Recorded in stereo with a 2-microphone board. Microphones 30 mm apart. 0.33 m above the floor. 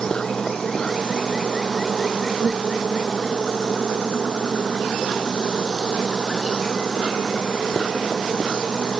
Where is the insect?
25° left (ahead or behind).